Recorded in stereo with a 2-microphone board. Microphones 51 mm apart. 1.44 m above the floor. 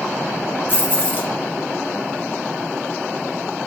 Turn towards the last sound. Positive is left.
turn(degrees=35)  # may be behind; listen again after turning